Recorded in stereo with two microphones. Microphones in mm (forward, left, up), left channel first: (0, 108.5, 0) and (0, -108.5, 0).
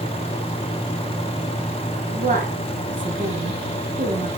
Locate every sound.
2.1 s a woman speaking: 40° right (ahead or behind), 3.5 m